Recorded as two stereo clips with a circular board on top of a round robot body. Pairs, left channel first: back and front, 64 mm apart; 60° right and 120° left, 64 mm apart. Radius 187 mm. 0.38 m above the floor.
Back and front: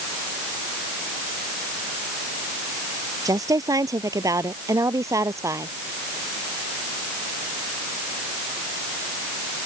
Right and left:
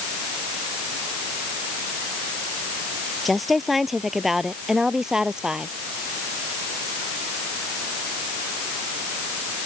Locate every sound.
3.2 s a woman speaking: 30° left; by 5.7 s 40° left